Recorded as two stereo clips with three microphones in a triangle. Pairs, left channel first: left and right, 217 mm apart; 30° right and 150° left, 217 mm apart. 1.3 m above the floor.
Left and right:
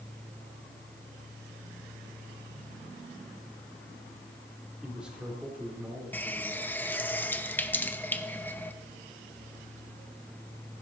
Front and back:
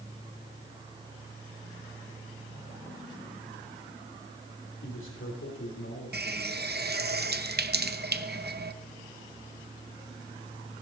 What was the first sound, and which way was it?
A man speaking, straight ahead.